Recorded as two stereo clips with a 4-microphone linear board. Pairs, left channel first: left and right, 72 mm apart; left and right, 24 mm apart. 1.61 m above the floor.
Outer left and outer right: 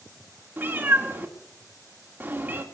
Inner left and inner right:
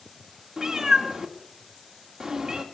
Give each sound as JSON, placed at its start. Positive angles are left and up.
{"t": 0.6, "sound": "a cat meowing", "side_deg": -25, "distance_m": 1.7}